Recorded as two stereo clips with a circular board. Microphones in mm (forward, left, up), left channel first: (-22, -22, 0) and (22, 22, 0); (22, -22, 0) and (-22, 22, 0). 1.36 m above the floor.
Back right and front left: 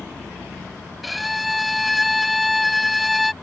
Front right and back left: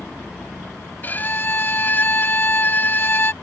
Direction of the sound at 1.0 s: 45° right.